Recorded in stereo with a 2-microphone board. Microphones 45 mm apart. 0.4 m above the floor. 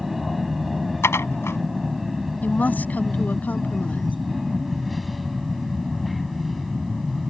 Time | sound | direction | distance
0.0 | an aircraft | 5° right (ahead or behind) | ?
1.0 | dishes clattering | 75° left (ahead or behind) | ?
2.4 | a woman speaking | 40° left (ahead or behind) | ?